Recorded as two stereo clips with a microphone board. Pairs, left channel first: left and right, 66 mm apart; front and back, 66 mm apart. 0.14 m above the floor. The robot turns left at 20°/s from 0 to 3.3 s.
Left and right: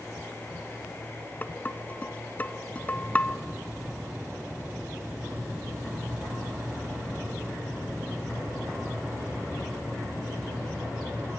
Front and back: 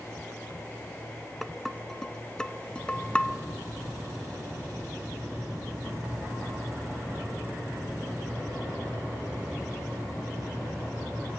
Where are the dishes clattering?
90° left, 0.8 m; by 3.4 s 50° left, 0.8 m.